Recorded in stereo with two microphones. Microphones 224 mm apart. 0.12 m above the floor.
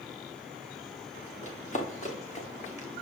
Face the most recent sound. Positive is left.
turn(degrees=30)  # may be behind; listen again after turning